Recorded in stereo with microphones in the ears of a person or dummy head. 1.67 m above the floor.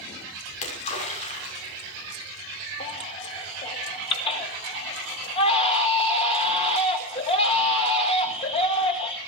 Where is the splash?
40° left (ahead or behind), 6 m.